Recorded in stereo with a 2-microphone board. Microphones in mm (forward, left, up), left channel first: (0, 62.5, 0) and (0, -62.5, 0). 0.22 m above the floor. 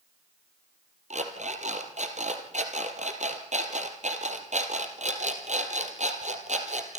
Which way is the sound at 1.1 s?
70° right (ahead or behind).